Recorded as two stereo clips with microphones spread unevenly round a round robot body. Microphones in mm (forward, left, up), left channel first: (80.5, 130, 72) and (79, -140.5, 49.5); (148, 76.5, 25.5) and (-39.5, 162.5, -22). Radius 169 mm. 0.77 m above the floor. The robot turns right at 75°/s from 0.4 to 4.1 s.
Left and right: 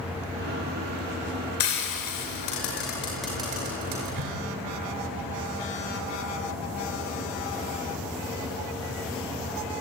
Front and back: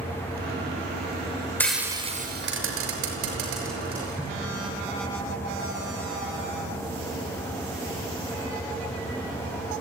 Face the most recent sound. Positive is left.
turn(degrees=-115)